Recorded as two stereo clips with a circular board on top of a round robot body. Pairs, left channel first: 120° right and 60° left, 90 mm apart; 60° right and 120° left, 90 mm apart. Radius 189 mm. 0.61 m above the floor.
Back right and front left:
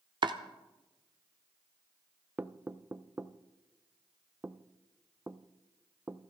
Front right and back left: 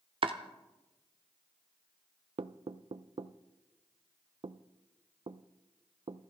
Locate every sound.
0.2 s chopping: 95° left, 0.6 m
2.4 s knocking: 130° left, 0.6 m